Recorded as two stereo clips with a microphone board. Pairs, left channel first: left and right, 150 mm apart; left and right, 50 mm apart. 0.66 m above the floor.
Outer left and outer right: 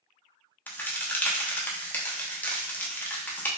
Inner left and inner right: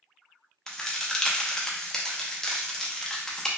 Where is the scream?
I don't hear a scream.